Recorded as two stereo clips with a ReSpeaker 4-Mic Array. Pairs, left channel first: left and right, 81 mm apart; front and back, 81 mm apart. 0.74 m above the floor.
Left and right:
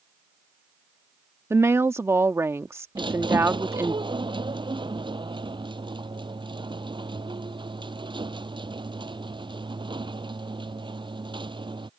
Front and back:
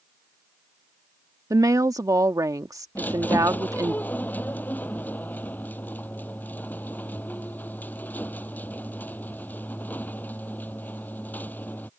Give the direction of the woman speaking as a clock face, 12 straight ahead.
5 o'clock.